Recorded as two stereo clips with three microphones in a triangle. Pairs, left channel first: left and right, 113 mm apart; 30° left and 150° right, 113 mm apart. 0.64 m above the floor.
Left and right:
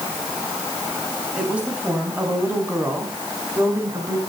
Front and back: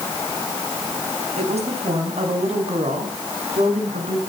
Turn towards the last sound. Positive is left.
turn(degrees=-155)